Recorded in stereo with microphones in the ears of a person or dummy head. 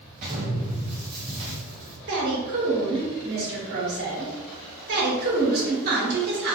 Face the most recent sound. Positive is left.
turn(degrees=-55)  # may be behind; listen again after turning